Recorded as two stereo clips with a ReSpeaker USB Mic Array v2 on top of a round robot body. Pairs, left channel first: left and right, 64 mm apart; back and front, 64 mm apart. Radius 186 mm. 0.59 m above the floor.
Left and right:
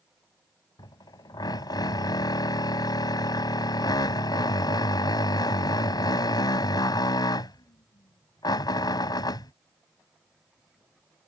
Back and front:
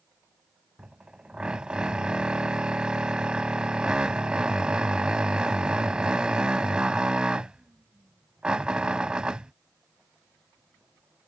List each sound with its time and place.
0.8 s a drill: 75° left